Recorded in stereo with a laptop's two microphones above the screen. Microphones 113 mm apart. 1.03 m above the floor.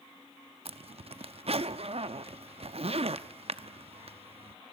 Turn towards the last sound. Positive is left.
turn(degrees=-60)  # may be behind; listen again after turning